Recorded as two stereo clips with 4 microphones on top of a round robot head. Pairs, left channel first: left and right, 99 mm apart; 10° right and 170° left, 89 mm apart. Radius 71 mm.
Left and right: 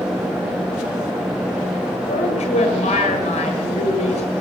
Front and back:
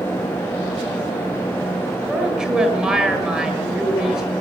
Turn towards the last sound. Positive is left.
turn(degrees=90)